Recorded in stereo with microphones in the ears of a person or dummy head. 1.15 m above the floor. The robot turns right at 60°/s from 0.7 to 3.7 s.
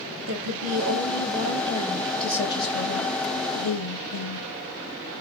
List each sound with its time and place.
0.3 s a woman speaking: 80° right, 1.4 m; by 4.5 s 100° left, 1.4 m